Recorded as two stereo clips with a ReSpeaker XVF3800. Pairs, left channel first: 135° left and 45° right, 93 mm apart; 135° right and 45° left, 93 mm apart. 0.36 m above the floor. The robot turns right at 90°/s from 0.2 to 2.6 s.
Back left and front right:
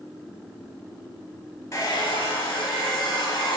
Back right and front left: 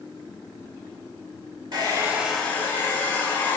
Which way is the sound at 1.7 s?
80° left.